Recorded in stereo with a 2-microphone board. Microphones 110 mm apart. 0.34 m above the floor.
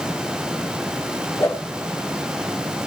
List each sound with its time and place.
1.4 s a whoosh: 25° left (ahead or behind), 6 m